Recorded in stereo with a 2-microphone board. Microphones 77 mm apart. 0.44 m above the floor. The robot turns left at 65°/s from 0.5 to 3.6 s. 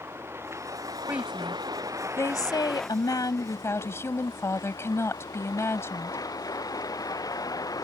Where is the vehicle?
35° right; by 7.8 s 125° left.